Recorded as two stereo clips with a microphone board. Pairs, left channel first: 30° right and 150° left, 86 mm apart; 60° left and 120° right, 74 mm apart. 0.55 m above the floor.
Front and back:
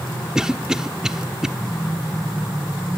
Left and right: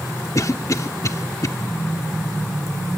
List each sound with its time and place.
0.3 s a cough: 70° left, 1.0 m